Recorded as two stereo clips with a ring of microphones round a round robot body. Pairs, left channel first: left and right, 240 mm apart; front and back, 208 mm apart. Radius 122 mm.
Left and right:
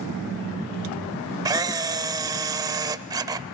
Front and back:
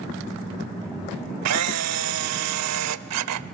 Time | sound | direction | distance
1.4 | a camera shutter | 165° right | 0.7 m